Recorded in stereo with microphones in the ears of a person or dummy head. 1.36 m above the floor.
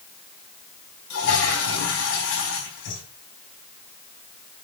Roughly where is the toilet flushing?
Left.